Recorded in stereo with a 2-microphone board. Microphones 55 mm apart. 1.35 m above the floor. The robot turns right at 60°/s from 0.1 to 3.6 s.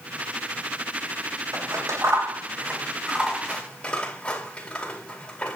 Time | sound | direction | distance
1.5 | scissors | 75° right (ahead or behind) | 4 m